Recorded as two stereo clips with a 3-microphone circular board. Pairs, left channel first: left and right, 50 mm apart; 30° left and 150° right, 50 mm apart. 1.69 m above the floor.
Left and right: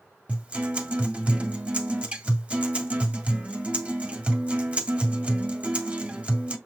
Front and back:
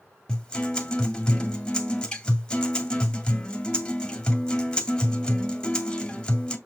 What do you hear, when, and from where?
0.3 s a guitar: 35° right, 2 m